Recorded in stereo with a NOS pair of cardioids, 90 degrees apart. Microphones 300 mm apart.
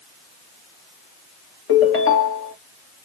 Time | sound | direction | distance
1.7 | a ringtone | 50° left | 1.5 m